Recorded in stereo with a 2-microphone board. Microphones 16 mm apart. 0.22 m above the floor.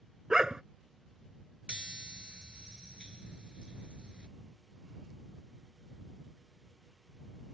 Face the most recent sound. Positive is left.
turn(degrees=-70)  # may be behind; listen again after turning